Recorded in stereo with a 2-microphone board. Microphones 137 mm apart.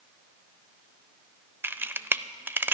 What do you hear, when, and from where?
1.6 s a camera shutter: 15° right (ahead or behind), 0.5 m